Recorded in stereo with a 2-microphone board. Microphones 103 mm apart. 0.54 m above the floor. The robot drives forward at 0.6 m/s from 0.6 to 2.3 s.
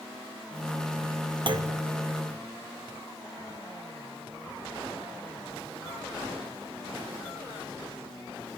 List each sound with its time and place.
1.5 s a clunk: 50° right (ahead or behind), 0.5 m; by 1.8 s 40° right (ahead or behind), 0.6 m